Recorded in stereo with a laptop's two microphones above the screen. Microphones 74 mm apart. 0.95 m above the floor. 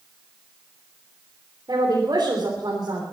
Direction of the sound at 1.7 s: 60° right (ahead or behind).